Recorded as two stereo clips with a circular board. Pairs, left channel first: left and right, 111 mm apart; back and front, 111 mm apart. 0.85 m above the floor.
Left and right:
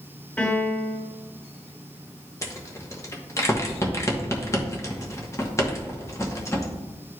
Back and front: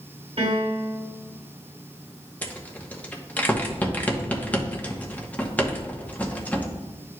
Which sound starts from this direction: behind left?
A rattle, at 2.4 s.